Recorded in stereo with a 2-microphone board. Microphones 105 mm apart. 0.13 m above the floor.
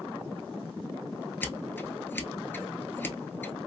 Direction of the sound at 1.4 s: 20° left (ahead or behind).